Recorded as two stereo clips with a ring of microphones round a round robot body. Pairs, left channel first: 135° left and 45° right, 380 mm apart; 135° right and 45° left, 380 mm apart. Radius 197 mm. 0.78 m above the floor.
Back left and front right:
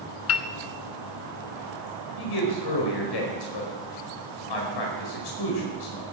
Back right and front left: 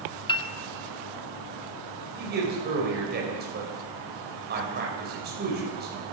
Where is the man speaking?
110° left, 4.5 m.